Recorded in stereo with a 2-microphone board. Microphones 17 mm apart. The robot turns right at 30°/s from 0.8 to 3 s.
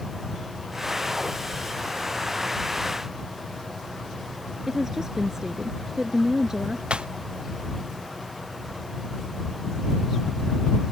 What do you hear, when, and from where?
4.7 s a woman speaking: 35° right (ahead or behind)
6.9 s breaking glass: 85° right